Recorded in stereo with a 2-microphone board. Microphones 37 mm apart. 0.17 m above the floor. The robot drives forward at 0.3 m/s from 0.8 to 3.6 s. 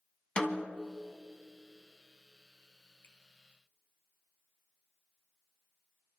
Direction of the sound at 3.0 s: 65° left (ahead or behind).